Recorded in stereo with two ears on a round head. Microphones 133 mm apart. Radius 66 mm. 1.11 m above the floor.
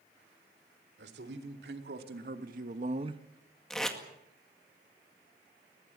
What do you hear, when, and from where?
1.0 s a man speaking: 85° right, 3.5 m; by 3.2 s 25° right (ahead or behind), 0.9 m
3.7 s tape being pulled: 5° left (ahead or behind), 2 m